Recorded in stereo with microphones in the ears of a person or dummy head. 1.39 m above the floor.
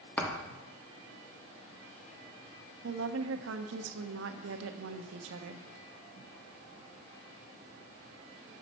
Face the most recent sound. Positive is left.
turn(degrees=-80)